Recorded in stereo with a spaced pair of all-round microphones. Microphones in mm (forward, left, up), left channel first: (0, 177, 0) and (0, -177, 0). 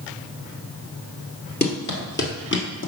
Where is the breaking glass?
No breaking glass in this recording.